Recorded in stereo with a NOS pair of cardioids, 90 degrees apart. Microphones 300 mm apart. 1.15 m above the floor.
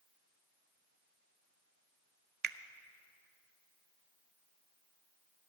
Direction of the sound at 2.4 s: 35° right.